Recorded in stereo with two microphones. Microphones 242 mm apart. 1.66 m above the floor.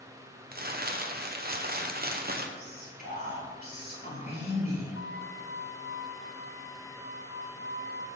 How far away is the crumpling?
About 0.8 m.